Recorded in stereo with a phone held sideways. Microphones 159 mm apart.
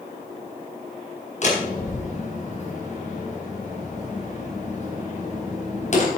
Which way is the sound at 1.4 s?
50° left (ahead or behind).